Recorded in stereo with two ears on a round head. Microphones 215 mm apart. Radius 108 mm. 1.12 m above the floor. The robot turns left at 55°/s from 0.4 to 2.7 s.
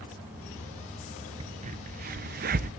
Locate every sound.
1.4 s a crack: 20° right (ahead or behind), 0.5 m; by 2.7 s 35° right (ahead or behind), 0.5 m